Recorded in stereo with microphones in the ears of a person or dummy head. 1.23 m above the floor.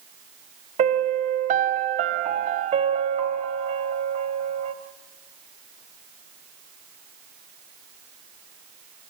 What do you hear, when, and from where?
0.8 s a piano: 40° right (ahead or behind), 1.6 m